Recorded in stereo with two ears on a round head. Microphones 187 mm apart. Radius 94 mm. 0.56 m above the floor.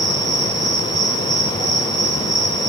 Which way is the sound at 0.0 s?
35° right (ahead or behind).